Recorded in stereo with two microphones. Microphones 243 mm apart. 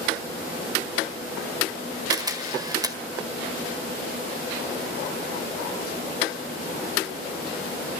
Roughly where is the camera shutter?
Centre.